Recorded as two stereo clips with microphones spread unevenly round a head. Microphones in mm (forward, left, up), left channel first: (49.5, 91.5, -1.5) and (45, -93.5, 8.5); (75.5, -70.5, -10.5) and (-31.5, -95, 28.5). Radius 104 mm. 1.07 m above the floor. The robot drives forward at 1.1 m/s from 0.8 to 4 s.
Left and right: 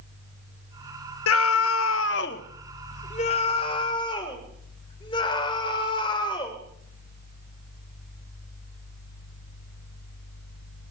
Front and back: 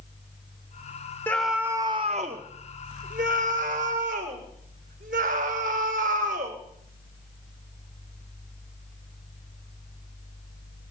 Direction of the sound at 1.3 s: 90° left.